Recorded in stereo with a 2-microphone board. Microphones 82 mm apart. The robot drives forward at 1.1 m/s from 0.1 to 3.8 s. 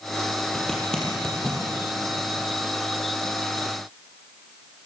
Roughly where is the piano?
I don't hear a piano.